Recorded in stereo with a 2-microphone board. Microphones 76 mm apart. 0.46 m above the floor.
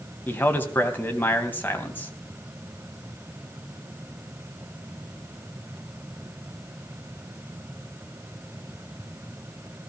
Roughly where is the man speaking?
Left.